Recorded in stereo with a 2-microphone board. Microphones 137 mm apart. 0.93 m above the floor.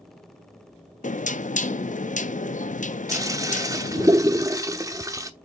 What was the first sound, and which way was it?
Knocking, 80° left.